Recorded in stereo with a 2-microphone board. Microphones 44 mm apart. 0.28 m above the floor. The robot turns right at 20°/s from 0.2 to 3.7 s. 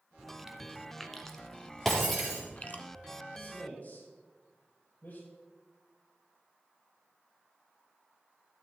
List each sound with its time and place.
0.2 s chewing: 10° right (ahead or behind), 0.9 m; by 2.8 s 40° left (ahead or behind), 0.9 m
1.9 s breaking glass: 5° left (ahead or behind), 4 m; by 2.4 s 5° right (ahead or behind), 4 m
3.3 s a man speaking: 50° left (ahead or behind), 5 m; by 5.2 s 55° left (ahead or behind), 5 m